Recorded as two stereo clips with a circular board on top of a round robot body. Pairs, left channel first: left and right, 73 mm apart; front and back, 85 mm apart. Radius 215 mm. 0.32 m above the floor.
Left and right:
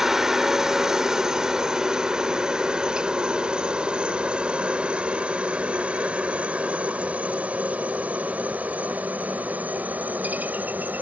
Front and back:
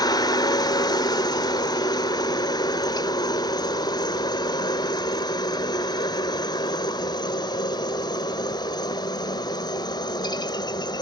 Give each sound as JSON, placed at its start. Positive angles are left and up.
{"t": 0.0, "sound": "a helicopter", "azimuth_deg": -5}